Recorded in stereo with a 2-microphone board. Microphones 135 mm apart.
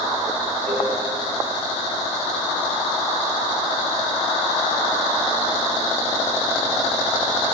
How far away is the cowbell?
About 4 m.